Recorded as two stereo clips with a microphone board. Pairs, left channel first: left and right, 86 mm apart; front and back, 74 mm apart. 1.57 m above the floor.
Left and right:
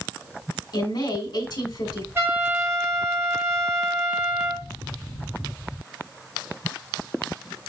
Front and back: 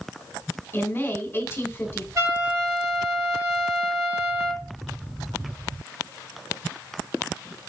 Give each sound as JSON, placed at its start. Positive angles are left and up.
{"t": 0.7, "sound": "a woman speaking", "azimuth_deg": 60, "distance_m": 1.7}
{"t": 2.1, "sound": "a trumpet", "azimuth_deg": -145, "distance_m": 2.5}